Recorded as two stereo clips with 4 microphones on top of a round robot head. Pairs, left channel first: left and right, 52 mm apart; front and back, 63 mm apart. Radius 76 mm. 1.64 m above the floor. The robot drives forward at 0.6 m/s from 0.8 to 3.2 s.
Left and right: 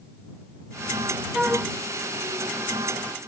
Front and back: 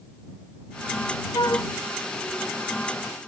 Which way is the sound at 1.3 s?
15° right.